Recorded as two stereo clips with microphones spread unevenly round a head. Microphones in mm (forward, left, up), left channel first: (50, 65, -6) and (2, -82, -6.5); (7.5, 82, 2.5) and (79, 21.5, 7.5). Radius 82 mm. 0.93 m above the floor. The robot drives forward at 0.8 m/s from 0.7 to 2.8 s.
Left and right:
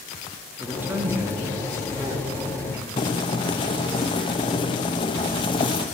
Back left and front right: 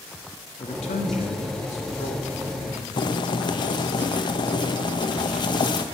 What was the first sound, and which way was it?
A man speaking, 170° left.